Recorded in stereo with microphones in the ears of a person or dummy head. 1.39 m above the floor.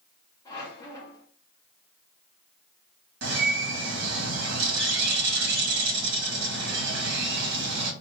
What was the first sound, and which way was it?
A squeak, 20° left (ahead or behind).